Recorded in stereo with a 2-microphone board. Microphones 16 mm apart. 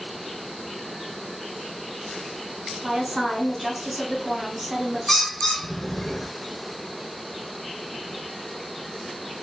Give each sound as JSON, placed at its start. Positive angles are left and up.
{"t": 2.8, "sound": "a woman speaking", "side_deg": -30, "distance_m": 1.9}
{"t": 5.1, "sound": "a bird", "side_deg": 20, "distance_m": 0.7}